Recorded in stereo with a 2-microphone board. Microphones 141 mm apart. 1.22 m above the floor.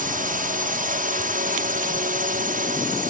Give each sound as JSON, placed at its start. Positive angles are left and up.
{"t": 0.0, "sound": "a drone", "side_deg": -70}